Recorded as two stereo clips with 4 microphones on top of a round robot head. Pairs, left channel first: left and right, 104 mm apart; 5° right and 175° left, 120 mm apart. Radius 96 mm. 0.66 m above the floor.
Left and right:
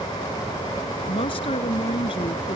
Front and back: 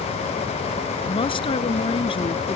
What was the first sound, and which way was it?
A woman speaking, 40° left.